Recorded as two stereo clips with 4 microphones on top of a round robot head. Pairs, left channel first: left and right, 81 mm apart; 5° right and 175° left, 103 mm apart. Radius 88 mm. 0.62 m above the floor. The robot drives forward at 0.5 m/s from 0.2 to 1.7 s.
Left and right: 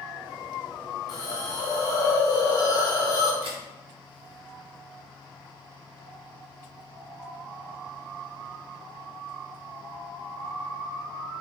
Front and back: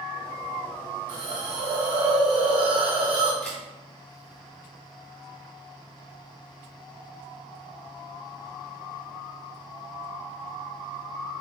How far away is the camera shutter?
About 0.9 m.